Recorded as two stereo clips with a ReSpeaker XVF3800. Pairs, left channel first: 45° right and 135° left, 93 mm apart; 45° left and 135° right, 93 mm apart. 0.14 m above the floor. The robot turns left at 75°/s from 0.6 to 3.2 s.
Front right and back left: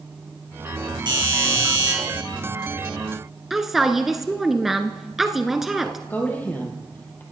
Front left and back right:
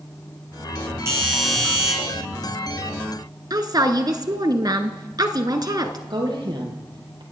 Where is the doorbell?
170° left, 8.5 m; by 1.9 s 100° left, 8.5 m.